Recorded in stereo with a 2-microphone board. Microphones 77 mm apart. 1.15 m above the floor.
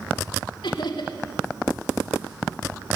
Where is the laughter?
85° left, 2.5 m.